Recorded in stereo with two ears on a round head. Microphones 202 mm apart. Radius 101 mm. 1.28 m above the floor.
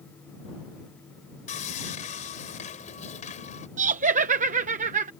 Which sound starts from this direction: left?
Sawing, at 1.5 s.